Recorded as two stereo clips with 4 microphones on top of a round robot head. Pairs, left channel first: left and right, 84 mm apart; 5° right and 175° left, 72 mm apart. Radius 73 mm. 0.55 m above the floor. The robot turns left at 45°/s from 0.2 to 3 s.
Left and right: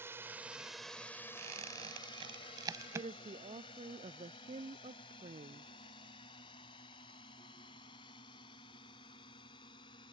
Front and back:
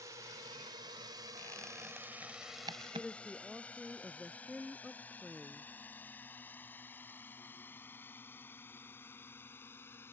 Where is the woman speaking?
95° right.